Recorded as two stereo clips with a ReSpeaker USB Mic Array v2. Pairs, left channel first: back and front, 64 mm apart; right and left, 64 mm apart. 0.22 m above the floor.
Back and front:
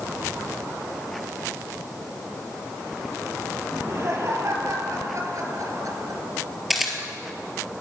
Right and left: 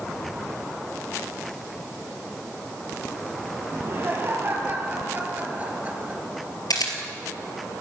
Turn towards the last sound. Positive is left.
turn(degrees=-90)